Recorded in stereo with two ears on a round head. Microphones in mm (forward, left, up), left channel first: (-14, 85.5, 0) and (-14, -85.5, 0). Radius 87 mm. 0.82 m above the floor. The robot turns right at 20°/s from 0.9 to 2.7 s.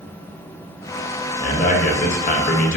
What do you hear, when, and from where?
1.4 s a man speaking: 40° left (ahead or behind), 0.6 m; by 2.8 s 45° left (ahead or behind), 0.6 m